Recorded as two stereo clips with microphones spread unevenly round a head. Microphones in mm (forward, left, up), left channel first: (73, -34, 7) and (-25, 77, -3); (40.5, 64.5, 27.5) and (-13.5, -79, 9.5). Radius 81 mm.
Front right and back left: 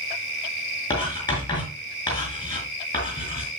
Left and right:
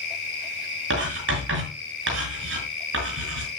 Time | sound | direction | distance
0.9 | writing | 115° right | 5.5 m